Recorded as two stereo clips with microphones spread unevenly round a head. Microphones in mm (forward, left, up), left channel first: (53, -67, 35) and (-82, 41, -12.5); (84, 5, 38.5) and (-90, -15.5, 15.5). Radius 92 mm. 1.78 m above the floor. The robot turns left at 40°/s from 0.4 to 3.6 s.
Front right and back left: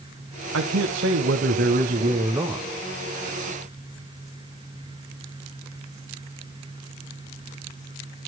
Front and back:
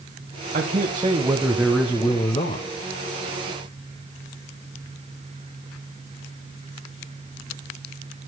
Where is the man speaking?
140° left, 1.3 m; by 2.7 s 55° left, 1.3 m.